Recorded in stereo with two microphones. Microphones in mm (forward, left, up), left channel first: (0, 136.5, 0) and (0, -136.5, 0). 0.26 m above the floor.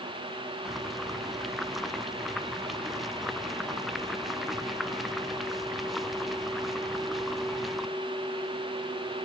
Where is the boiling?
Centre (ahead or behind).